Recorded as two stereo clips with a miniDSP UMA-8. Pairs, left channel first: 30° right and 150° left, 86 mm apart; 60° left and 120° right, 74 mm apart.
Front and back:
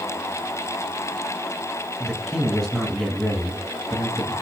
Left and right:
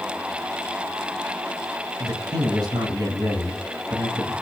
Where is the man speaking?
120° right, 2.5 m.